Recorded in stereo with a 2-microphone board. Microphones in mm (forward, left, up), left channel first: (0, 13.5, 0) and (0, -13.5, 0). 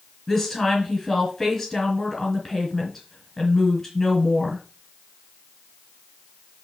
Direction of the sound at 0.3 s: 15° left (ahead or behind).